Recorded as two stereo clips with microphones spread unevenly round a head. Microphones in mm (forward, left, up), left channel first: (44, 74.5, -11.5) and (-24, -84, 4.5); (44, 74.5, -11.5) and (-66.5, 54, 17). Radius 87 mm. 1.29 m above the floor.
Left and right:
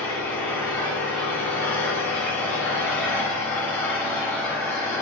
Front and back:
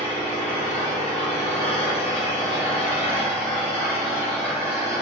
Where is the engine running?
10° right, 1.3 m.